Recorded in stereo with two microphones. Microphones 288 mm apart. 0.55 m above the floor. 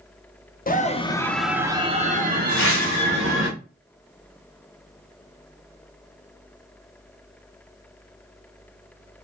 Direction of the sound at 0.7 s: 30° left (ahead or behind).